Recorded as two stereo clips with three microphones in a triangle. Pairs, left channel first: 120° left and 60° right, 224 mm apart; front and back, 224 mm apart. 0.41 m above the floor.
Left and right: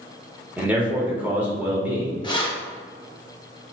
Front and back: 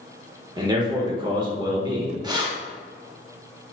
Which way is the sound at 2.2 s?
145° left.